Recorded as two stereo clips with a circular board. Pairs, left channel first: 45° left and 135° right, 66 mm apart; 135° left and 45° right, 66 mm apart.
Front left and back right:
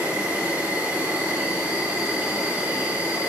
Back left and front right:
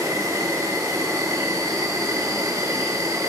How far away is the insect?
About 4 m.